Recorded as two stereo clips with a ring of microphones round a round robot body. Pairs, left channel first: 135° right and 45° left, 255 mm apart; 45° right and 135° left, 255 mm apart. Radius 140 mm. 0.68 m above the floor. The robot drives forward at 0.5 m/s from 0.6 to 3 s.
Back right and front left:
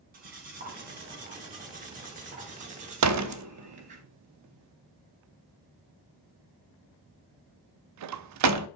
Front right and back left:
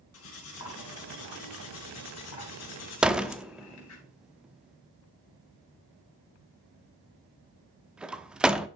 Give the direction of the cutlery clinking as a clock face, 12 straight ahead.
12 o'clock.